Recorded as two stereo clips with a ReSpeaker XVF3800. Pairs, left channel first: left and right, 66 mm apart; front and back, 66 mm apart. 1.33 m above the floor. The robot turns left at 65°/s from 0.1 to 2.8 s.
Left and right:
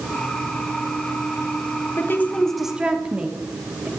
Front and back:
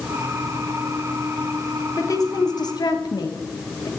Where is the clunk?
No clunk in this recording.